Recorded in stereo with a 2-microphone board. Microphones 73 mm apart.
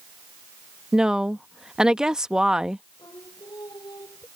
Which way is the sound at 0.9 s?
10° right (ahead or behind).